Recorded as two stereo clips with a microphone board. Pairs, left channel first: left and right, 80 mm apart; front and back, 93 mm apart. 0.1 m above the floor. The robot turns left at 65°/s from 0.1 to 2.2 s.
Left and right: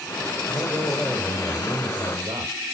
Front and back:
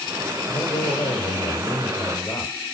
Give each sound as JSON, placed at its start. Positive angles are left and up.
{"t": 0.5, "sound": "a man speaking", "azimuth_deg": 65, "distance_m": 4.5}